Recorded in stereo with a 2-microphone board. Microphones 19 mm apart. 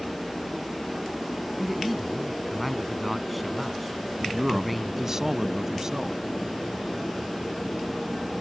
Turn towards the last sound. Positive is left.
turn(degrees=-30)  # may be behind; listen again after turning